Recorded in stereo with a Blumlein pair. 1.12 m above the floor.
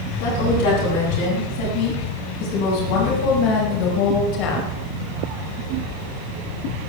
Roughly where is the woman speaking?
Ahead left.